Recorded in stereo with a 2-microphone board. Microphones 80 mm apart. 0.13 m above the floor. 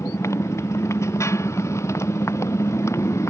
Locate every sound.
0.0 s a motorcycle: 35° left (ahead or behind)